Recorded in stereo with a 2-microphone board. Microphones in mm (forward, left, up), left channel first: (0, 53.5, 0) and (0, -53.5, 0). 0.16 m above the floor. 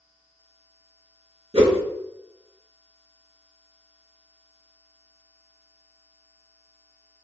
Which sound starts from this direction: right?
A whoosh, at 1.5 s.